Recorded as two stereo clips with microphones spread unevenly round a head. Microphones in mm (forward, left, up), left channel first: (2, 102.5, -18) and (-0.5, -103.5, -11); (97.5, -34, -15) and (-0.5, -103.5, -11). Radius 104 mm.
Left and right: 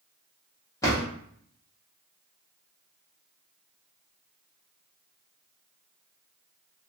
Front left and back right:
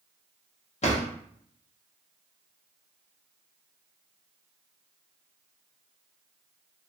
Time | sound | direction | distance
0.8 | a drawer | 15° left | 1.2 m